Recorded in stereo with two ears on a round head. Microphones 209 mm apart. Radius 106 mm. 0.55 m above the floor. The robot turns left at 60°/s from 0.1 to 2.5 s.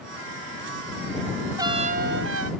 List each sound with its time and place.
1.6 s a trumpet: 15° right; by 2.5 s 70° right